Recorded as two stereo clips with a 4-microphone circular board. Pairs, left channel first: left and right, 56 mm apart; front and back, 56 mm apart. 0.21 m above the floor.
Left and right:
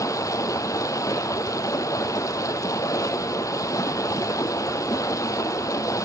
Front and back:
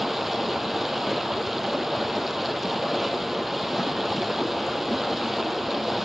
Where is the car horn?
I don't hear a car horn.